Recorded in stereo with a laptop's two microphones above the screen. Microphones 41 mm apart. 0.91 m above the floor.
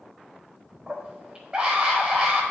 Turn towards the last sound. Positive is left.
turn(degrees=-20)  # may be behind; listen again after turning